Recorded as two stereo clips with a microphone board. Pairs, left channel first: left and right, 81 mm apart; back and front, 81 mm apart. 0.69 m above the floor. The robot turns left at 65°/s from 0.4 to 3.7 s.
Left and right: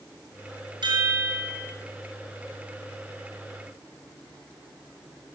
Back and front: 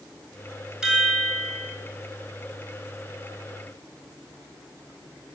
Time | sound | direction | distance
0.8 | a chime | 80° right | 5 m